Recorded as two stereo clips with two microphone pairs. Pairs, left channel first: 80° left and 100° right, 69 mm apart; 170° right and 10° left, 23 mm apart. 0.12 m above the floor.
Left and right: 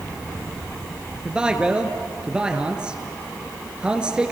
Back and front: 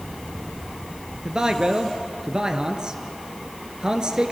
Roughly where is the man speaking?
Ahead right.